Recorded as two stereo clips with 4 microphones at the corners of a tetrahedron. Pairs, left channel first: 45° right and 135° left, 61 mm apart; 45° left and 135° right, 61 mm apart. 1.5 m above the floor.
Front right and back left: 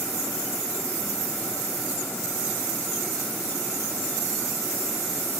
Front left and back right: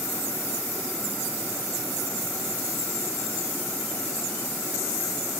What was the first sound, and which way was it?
Only background noise.